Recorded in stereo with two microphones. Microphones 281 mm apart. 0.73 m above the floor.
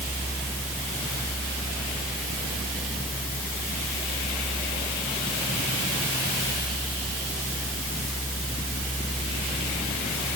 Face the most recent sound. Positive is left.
No sound to turn to.